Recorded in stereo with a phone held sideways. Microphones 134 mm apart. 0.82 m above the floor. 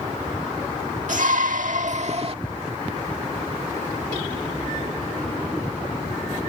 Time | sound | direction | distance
1.1 | a shout | 70° right (ahead or behind) | ?